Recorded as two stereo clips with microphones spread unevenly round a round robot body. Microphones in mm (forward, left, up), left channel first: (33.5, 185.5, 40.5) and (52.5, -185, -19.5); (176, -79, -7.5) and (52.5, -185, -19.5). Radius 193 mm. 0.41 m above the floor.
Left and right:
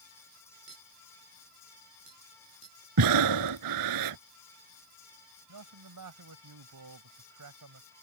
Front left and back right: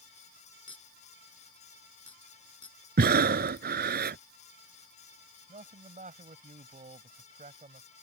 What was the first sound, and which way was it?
A clink, 15° right.